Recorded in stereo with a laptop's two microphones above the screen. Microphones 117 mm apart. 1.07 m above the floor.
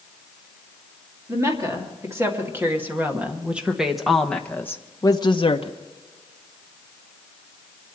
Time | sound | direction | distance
1.3 | a woman speaking | 25° right (ahead or behind) | 2 m